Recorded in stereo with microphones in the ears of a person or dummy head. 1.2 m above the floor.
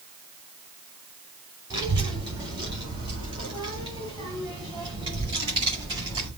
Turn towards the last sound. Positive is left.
turn(degrees=-25)  # may be behind; listen again after turning